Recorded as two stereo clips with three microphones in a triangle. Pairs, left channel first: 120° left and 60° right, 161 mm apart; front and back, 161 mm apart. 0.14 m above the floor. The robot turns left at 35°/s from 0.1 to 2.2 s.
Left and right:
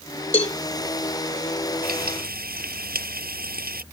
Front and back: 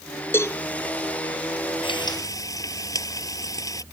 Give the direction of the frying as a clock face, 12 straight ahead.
2 o'clock.